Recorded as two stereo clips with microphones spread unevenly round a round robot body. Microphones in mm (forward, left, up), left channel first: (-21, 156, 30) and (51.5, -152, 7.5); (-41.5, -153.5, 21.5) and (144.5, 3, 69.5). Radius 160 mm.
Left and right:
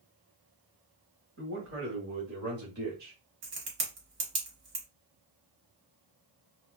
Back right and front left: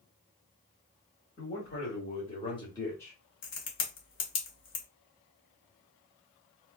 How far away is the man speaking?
About 1.8 m.